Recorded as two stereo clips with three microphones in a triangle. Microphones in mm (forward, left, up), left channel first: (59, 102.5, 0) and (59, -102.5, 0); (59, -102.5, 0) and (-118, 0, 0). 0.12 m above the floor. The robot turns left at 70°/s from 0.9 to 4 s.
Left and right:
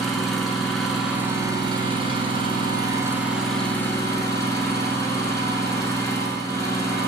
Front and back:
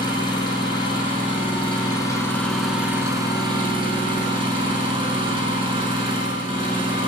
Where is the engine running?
Straight ahead, 0.9 m; by 7.1 s 145° left, 0.9 m.